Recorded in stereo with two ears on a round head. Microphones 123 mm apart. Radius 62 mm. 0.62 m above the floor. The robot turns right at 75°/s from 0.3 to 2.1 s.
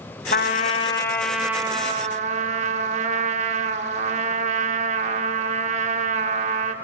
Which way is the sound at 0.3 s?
100° left.